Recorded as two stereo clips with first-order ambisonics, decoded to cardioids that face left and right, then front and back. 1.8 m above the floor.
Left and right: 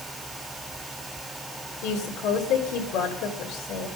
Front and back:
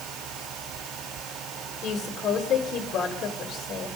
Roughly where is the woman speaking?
Ahead left.